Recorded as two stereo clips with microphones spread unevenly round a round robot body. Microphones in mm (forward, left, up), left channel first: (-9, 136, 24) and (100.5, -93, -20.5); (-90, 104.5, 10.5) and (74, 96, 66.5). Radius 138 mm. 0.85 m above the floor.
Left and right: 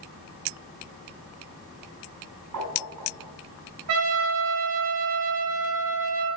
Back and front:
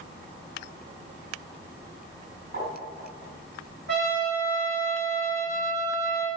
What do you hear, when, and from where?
2.5 s tapping: 40° right, 4.5 m
3.9 s a trumpet: 40° right, 4 m